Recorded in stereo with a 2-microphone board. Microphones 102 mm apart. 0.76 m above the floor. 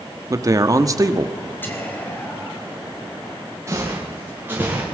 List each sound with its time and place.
0.3 s a man speaking: 35° right (ahead or behind), 1.3 m
1.6 s whispering: 20° left (ahead or behind), 4.5 m
3.7 s footsteps: 30° right (ahead or behind), 7.5 m; by 4.8 s 15° right (ahead or behind), 7 m